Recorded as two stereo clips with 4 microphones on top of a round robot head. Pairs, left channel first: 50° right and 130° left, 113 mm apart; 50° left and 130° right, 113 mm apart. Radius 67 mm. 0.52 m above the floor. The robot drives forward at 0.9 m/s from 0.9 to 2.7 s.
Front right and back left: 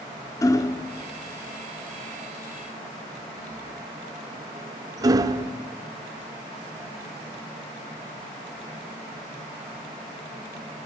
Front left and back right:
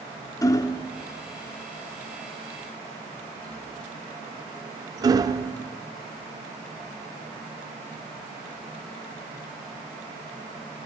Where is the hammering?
Straight ahead, 1.0 m; by 5.5 s straight behind, 1.1 m.